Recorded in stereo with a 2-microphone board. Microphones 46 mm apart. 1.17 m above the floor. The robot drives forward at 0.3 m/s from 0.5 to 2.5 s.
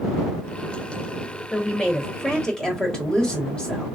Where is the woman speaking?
20° left (ahead or behind), 1.1 m; by 3.9 s 15° left (ahead or behind), 1.4 m.